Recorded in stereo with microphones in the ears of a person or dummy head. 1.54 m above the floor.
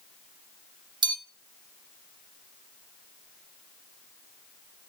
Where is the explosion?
I don't hear an explosion.